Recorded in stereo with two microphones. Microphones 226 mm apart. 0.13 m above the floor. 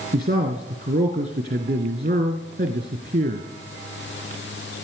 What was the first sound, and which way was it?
A man speaking, 40° right (ahead or behind).